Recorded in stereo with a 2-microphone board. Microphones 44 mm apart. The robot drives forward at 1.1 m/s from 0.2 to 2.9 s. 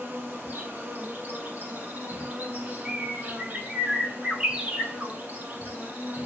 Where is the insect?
60° right (ahead or behind), 6.5 m; by 6.3 s 40° right (ahead or behind), 8.5 m.